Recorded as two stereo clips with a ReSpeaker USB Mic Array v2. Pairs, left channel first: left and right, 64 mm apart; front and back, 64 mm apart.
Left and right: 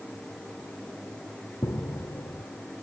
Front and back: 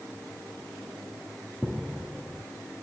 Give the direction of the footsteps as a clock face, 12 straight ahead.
9 o'clock.